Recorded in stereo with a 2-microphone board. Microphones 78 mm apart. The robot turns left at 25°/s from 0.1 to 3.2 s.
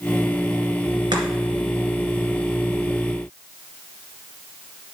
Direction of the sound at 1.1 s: 80° right.